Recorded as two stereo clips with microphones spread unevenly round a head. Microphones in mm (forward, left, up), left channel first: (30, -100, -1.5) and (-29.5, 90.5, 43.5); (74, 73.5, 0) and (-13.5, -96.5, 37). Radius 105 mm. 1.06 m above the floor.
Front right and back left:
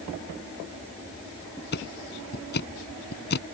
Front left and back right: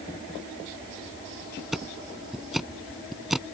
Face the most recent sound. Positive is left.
turn(degrees=-30)